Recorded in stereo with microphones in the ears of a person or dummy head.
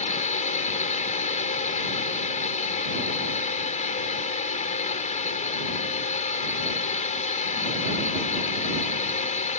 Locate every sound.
0.0 s a drone: 30° left (ahead or behind)